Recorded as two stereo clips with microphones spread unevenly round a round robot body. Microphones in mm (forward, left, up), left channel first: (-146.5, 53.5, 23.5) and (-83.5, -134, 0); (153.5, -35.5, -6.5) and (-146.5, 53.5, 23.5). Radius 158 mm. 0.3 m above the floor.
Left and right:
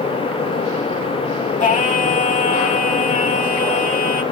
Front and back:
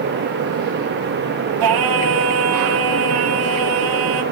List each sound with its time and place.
1.6 s singing: 160° left, 1.8 m